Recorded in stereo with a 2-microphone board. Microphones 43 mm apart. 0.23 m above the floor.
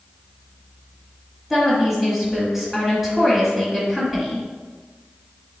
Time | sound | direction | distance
1.5 | a woman speaking | 5° right (ahead or behind) | 1.5 m